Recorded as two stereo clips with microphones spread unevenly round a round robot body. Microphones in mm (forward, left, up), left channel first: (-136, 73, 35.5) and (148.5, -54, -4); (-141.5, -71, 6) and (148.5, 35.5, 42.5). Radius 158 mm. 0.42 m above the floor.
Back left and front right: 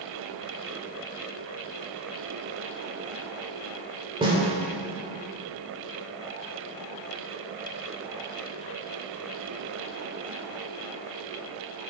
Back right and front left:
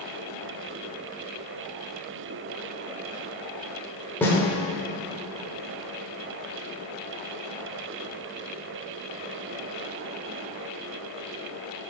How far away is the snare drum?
About 1.1 m.